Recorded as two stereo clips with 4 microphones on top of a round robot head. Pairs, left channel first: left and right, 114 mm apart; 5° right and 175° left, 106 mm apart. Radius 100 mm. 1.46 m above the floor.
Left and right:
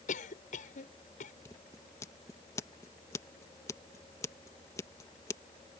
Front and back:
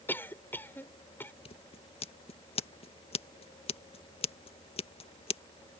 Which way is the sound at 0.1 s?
65° left.